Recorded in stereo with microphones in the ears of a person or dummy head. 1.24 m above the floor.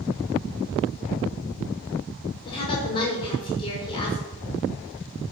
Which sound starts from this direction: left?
A woman speaking, at 2.5 s.